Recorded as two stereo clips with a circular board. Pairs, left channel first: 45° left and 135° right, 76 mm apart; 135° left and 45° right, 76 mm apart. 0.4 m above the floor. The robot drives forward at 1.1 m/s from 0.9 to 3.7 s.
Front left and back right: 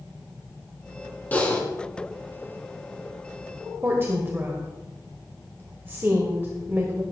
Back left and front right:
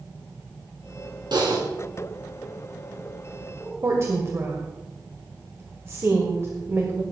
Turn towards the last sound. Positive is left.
turn(degrees=-85)